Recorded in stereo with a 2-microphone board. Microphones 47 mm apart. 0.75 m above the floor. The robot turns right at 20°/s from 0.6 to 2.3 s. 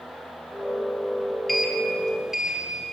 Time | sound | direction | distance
1.5 | a sliding door | 5° left (ahead or behind) | 2.5 m